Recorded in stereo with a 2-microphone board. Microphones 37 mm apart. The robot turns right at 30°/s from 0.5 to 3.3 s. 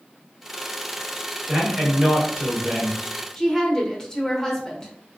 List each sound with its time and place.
1.5 s a man speaking: 135° right, 1.2 m; by 3.0 s 90° right, 1.2 m
3.4 s a woman speaking: 10° left (ahead or behind), 0.9 m